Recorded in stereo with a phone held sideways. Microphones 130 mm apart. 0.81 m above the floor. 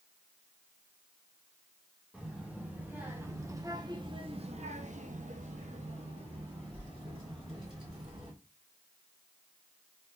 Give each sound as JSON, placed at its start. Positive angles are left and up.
{"t": 2.1, "sound": "a child speaking", "side_deg": -5, "distance_m": 1.5}